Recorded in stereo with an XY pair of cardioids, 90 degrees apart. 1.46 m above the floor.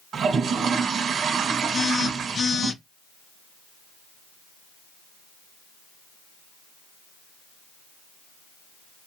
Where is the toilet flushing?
65° right, 1.3 m.